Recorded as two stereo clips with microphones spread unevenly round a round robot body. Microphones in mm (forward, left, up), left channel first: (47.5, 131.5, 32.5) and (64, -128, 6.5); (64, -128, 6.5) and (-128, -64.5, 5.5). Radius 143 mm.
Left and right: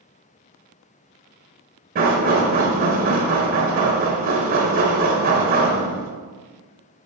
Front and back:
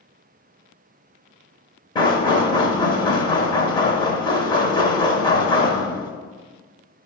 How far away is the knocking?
About 0.8 m.